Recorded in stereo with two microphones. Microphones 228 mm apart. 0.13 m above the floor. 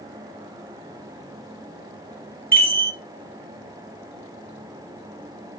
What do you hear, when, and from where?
2.5 s a chime: 10° right (ahead or behind), 2 m